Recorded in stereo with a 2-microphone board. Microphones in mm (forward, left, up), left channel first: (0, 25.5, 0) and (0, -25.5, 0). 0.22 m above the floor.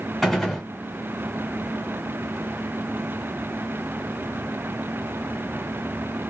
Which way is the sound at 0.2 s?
Centre (ahead or behind).